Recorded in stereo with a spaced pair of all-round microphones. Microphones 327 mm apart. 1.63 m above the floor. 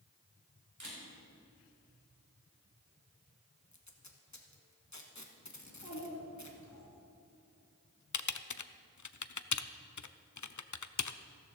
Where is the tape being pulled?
60° left (ahead or behind), 1.3 m.